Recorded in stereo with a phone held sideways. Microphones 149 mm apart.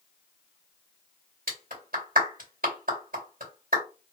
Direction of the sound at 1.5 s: 70° right (ahead or behind).